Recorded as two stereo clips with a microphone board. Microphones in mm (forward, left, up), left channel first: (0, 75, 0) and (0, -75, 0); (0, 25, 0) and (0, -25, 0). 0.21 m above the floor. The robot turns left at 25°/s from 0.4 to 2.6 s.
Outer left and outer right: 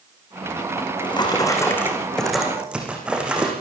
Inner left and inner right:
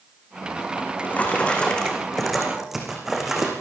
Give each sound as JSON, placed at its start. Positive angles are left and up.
{"t": 0.8, "sound": "a drawer", "azimuth_deg": 40, "distance_m": 6.5}